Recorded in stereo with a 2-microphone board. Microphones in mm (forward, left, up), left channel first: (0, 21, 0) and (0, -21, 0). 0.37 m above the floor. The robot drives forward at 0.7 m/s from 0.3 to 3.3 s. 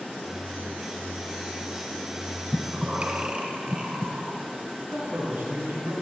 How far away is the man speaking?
About 4 m.